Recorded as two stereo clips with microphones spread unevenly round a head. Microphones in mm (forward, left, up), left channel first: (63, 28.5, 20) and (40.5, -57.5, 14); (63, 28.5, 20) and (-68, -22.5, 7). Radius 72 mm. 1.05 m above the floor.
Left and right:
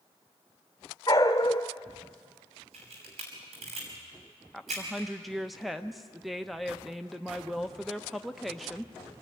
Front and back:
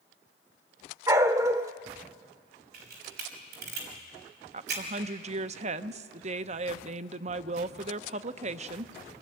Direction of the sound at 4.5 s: 170° left.